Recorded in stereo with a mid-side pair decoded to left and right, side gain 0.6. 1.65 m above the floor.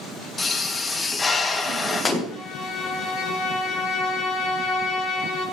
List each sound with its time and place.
0.4 s a pop: 20° left, 2 m
2.3 s a violin: 60° left, 6 m